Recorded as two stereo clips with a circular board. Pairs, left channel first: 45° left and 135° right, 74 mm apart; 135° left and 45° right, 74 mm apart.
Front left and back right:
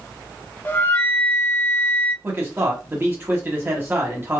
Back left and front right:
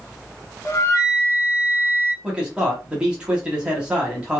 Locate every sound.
0.7 s a flute: 95° left, 0.6 m
2.2 s a man speaking: 110° right, 1.1 m